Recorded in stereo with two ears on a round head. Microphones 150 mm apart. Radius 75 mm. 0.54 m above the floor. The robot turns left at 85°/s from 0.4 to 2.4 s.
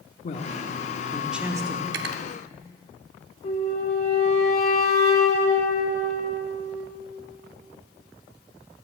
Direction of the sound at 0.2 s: 70° left.